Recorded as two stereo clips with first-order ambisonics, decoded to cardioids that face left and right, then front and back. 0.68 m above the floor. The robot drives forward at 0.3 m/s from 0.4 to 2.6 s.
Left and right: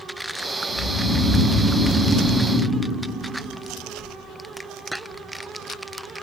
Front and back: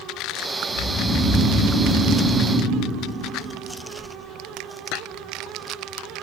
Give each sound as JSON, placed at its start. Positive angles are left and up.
{"t": 0.7, "sound": "snoring", "azimuth_deg": 40, "distance_m": 3.0}